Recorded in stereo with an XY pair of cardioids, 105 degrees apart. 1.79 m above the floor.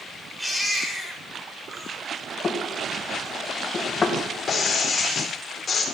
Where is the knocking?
35° left, 1.7 m.